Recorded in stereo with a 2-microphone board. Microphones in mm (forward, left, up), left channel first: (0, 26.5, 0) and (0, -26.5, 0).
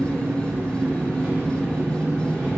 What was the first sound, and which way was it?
An engine running, 30° right (ahead or behind).